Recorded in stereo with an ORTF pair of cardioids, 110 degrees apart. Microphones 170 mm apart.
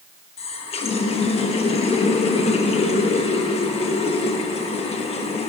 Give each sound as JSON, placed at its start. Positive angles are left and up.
{"t": 0.4, "sound": "a running tap", "azimuth_deg": 40, "distance_m": 1.1}